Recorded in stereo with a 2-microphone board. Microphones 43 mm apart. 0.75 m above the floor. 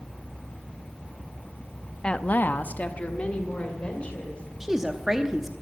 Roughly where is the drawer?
No drawer in this recording.